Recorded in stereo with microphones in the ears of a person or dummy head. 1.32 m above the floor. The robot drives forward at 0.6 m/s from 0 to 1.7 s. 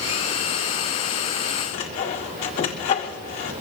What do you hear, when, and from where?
1.7 s sawing: 30° left (ahead or behind), 1.0 m